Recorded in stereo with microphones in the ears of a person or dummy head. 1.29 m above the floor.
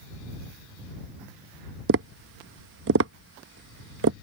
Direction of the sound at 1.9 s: 65° right (ahead or behind).